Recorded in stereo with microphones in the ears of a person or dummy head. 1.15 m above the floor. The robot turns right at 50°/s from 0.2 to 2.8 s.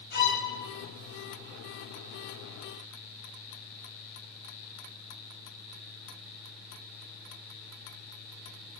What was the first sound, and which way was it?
A violin, 65° left (ahead or behind).